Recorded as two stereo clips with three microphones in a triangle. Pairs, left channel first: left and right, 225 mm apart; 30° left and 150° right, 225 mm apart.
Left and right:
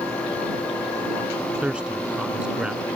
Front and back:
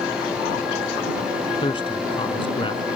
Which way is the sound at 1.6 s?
10° right.